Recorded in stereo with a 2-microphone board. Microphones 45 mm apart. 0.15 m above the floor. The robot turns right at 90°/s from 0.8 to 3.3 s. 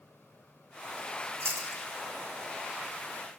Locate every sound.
1.4 s chewing: 80° right, 5 m; by 1.8 s 45° right (ahead or behind), 5 m